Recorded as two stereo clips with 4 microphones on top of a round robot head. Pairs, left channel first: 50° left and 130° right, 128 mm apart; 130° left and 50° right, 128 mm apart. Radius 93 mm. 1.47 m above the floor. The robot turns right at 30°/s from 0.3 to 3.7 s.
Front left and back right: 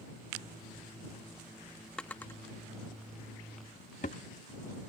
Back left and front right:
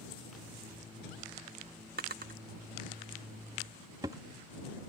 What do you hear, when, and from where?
2.0 s a drawer: 35° right; by 4.2 s 15° left